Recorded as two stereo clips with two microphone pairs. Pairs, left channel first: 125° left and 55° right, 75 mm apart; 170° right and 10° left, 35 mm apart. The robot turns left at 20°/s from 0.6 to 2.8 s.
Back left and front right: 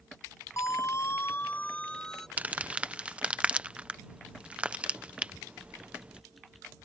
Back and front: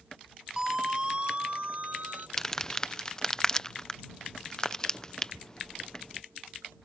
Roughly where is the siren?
Left.